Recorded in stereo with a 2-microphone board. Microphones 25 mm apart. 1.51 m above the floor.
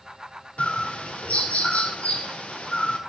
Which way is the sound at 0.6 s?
65° left (ahead or behind).